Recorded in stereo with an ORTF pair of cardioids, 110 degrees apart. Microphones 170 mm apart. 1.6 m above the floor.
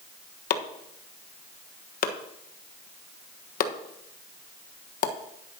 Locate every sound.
0.5 s chopping: 60° left, 1.3 m